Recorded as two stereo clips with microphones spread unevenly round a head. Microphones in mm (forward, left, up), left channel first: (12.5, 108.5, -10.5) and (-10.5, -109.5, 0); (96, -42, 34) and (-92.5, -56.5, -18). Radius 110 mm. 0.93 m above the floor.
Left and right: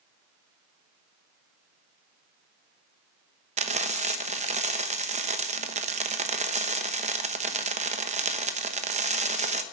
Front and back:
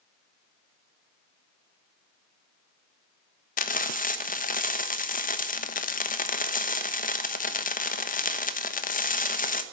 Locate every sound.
3.6 s frying: 45° right, 1.1 m